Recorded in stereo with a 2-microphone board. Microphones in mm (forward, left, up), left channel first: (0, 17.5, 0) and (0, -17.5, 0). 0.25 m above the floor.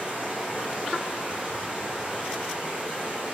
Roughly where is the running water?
Right.